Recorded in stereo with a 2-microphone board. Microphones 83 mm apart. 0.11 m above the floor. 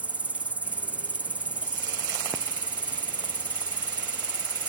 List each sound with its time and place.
0.0 s an insect: 20° right (ahead or behind)